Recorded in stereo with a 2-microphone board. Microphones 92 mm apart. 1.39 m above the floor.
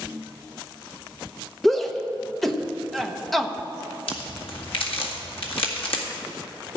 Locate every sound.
1.6 s a shout: centre (ahead or behind), 1.1 m
4.1 s a crack: 75° left (ahead or behind), 1.9 m